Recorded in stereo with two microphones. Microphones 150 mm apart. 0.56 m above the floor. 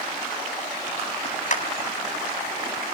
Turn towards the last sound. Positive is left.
turn(degrees=55)  # may be behind; listen again after turning